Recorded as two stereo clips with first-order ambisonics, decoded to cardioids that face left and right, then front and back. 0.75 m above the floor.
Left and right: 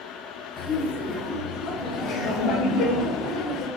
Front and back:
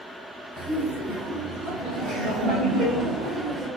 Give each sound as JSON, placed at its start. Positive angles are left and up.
{"t": 0.6, "sound": "laughter", "azimuth_deg": 45, "distance_m": 0.7}